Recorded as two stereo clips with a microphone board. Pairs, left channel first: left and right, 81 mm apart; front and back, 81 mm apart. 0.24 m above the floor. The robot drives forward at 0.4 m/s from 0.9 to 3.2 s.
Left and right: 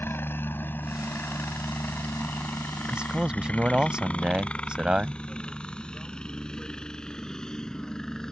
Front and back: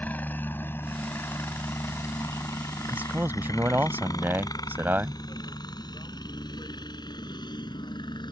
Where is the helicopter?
55° left; by 8.3 s 5° left.